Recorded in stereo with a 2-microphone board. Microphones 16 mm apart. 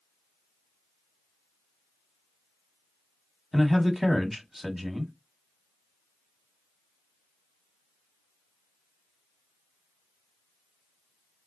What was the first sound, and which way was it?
A man speaking, 10° right (ahead or behind).